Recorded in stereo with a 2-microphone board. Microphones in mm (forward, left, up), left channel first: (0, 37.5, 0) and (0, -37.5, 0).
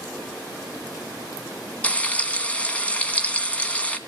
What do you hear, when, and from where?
1.8 s frying: 15° left (ahead or behind), 1.7 m